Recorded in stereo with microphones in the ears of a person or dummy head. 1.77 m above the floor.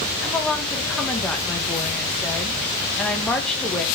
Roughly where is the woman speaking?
Centre.